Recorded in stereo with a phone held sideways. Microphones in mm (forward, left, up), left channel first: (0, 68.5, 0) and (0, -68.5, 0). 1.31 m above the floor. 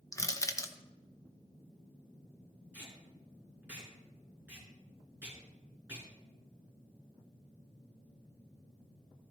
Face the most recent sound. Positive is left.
turn(degrees=-10)  # may be behind; listen again after turning